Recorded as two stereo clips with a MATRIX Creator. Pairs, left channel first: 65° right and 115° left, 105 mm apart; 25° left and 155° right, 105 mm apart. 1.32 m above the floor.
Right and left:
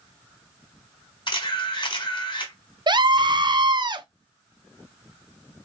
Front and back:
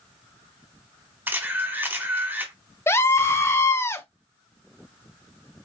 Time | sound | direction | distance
1.3 | a camera shutter | 90° right | 1.5 m
2.9 | a scream | 85° left | 0.6 m